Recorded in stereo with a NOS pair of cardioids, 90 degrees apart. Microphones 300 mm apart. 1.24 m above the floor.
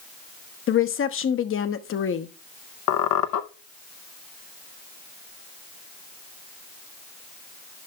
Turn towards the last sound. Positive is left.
turn(degrees=70)